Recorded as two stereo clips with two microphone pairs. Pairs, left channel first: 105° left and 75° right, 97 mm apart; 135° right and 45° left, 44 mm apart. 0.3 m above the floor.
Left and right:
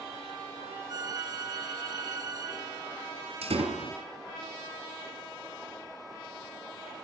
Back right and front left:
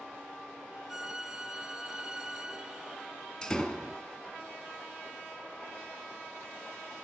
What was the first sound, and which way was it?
A violin, 30° right.